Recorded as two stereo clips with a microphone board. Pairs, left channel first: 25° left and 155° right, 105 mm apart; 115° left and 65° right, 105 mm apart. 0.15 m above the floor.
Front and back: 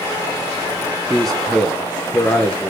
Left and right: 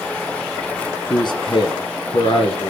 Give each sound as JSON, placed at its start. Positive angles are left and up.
{"t": 1.1, "sound": "a man speaking", "azimuth_deg": 110, "distance_m": 1.5}